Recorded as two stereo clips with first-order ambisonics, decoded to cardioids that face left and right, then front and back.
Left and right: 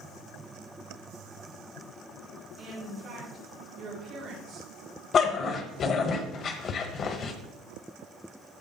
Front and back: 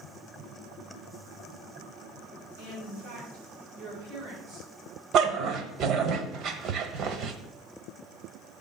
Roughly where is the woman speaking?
Behind.